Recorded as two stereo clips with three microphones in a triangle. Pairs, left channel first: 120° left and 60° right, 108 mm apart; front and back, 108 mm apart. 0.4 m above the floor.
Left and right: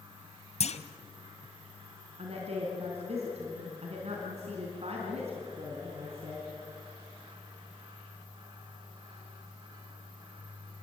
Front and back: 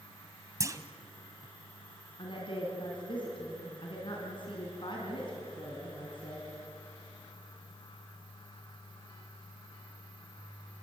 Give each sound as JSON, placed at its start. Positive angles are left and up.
{"t": 0.6, "sound": "a clunk", "azimuth_deg": 120, "distance_m": 1.3}
{"t": 2.2, "sound": "a woman speaking", "azimuth_deg": -40, "distance_m": 4.0}